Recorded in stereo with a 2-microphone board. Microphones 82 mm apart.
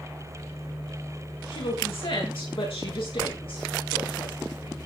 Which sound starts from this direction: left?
A woman speaking, at 1.5 s.